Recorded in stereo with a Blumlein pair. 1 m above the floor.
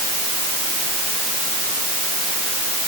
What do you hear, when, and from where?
Only background noise.